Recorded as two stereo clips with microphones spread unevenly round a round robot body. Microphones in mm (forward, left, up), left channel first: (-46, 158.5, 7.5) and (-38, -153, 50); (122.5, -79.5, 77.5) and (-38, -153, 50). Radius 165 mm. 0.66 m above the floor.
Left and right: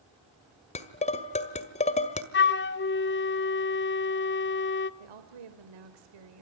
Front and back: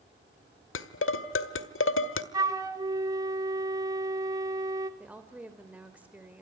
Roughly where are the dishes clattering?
Ahead.